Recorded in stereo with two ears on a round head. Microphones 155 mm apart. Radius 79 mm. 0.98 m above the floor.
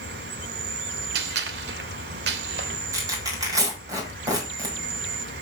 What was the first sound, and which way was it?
An insect, 70° right (ahead or behind).